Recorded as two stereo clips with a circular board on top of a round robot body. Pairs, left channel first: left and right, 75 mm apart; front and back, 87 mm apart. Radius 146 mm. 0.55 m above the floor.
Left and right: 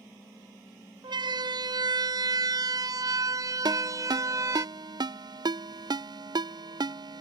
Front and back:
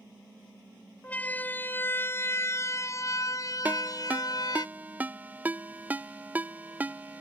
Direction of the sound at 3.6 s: 110° right.